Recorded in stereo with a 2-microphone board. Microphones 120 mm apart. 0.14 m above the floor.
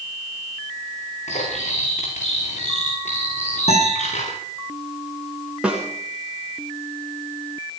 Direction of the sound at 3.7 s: 60° left (ahead or behind).